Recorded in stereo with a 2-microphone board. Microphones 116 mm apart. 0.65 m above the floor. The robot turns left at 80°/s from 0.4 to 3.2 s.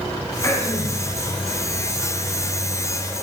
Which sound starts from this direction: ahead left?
Throat clearing, at 0.4 s.